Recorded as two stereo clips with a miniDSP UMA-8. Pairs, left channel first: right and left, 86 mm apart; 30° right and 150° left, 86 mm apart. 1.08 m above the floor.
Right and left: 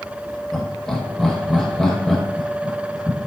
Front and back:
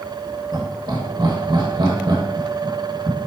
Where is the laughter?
175° right, 1.5 m.